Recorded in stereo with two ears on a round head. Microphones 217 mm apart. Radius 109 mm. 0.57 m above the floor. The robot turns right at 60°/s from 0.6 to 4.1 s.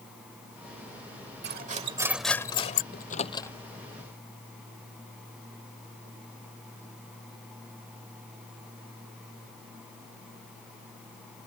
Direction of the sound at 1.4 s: 45° right.